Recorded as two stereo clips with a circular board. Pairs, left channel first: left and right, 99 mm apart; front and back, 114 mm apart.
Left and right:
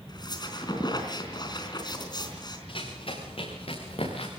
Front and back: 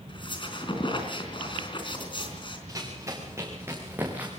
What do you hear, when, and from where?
0.1 s a squeak: 45° left, 4 m
2.7 s running footsteps: 120° left, 6.5 m; by 4.3 s 105° left, 5.5 m